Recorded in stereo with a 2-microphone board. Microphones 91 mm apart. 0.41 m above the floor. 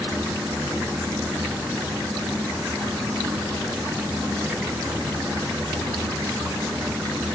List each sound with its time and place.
Only background noise.